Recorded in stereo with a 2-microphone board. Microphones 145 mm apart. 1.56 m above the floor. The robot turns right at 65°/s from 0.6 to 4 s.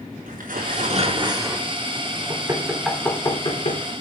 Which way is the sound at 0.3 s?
75° right.